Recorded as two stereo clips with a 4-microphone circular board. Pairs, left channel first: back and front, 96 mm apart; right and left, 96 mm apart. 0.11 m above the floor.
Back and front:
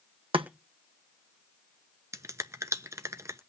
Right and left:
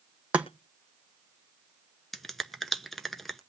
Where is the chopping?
15° left, 1.6 m.